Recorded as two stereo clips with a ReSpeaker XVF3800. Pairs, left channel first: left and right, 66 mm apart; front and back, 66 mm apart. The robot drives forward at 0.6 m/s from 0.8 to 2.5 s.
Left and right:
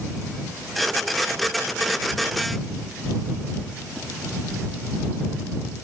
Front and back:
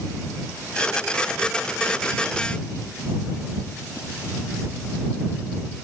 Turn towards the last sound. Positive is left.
No sound to turn to.